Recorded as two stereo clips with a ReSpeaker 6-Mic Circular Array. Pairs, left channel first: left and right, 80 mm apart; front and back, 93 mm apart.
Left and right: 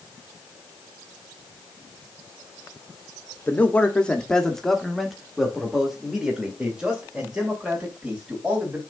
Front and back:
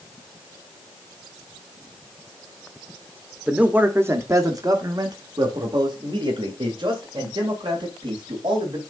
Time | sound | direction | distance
3.5 | a man speaking | 115° left | 1.0 m